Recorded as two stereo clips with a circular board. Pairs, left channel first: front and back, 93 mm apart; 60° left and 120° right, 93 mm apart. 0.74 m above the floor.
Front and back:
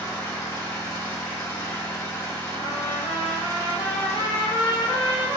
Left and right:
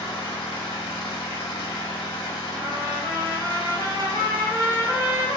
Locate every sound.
0.0 s an engine running: 55° left, 1.2 m
2.6 s a trumpet: 10° left, 0.8 m